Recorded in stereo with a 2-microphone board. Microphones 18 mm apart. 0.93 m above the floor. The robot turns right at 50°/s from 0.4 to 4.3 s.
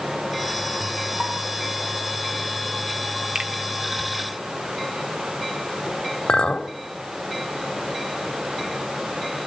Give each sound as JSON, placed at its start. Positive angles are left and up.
{"t": 1.2, "sound": "a pop", "side_deg": -30, "distance_m": 9.0}
{"t": 3.4, "sound": "a finger snap", "side_deg": -80, "distance_m": 2.5}
{"t": 6.3, "sound": "a clink", "side_deg": 75, "distance_m": 1.8}